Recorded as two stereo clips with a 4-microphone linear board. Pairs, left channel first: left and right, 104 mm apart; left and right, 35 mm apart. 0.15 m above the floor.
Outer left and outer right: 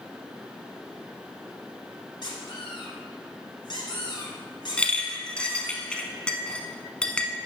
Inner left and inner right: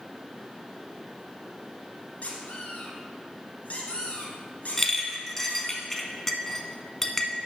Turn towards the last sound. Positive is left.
turn(degrees=10)  # may be behind; listen again after turning